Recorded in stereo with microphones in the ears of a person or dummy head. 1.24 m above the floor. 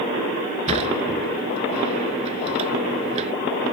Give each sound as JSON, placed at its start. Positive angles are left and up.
{"t": 0.7, "sound": "a sliding door", "side_deg": -40}